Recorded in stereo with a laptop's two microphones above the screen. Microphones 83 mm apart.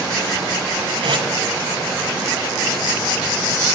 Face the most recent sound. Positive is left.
turn(degrees=-70)  # may be behind; listen again after turning